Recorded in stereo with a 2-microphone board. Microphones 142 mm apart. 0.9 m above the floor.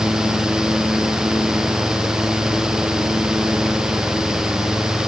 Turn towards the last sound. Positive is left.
No sound to turn to.